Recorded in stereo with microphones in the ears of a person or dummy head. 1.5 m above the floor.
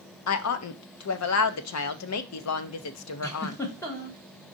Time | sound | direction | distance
0.3 | a woman speaking | 75° left (ahead or behind) | 0.7 m
3.2 | a giggle | 10° left (ahead or behind) | 1.0 m